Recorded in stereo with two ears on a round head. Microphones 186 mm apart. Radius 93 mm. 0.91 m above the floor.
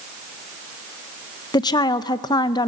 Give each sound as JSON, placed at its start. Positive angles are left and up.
{"t": 1.5, "sound": "a woman speaking", "side_deg": 20, "distance_m": 0.5}